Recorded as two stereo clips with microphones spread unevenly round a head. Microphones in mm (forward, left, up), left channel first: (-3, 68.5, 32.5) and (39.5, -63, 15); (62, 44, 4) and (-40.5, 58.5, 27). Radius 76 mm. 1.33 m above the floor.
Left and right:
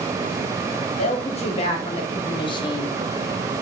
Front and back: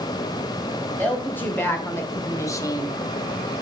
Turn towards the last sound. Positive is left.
turn(degrees=45)